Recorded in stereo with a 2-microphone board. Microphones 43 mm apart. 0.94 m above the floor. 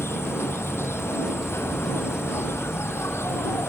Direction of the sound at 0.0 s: 80° left.